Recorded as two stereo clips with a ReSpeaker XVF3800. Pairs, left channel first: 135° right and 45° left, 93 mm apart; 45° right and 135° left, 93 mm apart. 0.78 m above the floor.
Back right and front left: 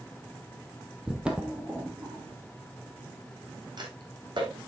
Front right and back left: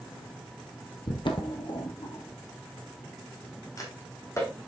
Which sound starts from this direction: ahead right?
Footsteps, at 1.1 s.